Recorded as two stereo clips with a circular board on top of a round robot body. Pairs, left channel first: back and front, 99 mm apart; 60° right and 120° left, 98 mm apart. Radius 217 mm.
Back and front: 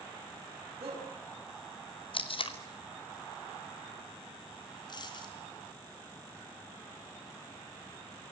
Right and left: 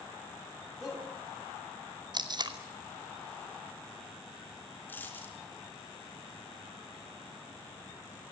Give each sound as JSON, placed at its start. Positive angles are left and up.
{"t": 0.8, "sound": "a shout", "azimuth_deg": 25, "distance_m": 6.0}
{"t": 2.1, "sound": "tape being pulled", "azimuth_deg": 160, "distance_m": 2.5}
{"t": 4.9, "sound": "a dropped coin", "azimuth_deg": -135, "distance_m": 3.5}